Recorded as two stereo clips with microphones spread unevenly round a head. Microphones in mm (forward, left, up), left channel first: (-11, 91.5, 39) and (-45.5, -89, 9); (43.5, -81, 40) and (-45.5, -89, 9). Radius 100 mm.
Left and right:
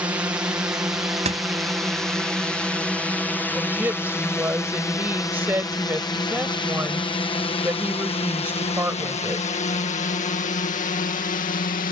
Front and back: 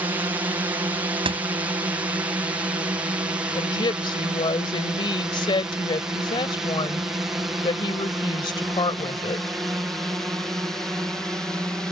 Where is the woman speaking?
20° right.